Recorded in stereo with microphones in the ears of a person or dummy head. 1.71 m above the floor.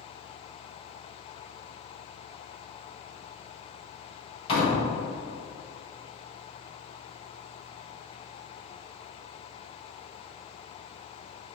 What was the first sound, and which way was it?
A door slam, 35° left (ahead or behind).